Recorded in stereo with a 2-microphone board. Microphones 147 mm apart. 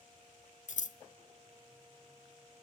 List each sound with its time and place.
0.7 s scissors: 60° left (ahead or behind), 0.5 m